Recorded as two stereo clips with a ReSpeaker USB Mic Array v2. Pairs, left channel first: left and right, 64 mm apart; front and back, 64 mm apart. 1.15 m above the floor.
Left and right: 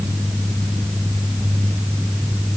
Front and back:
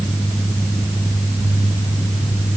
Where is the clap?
No clap in this recording.